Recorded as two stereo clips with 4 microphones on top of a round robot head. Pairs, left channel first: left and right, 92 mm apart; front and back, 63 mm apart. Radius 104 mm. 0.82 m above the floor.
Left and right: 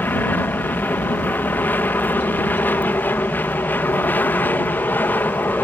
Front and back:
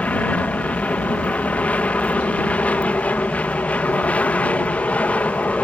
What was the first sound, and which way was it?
An aircraft, 40° left.